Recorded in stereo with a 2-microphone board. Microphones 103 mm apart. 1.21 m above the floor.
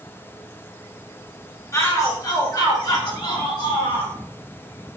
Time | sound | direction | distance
1.7 | a shout | 30° left (ahead or behind) | 4.5 m